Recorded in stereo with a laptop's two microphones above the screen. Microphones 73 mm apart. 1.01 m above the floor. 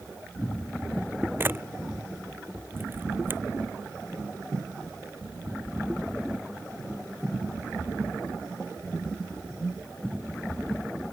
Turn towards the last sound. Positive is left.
turn(degrees=-30)  # may be behind; listen again after turning